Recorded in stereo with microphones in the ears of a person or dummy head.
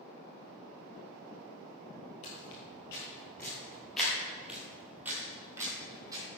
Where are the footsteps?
25° left (ahead or behind), 1.7 m; by 6.2 s 20° right (ahead or behind), 2.5 m.